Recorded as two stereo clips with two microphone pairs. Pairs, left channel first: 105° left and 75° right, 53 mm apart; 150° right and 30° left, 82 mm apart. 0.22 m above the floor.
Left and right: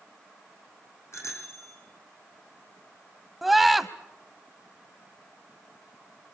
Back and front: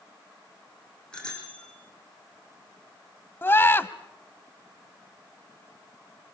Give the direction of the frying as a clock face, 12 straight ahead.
No frying in this recording.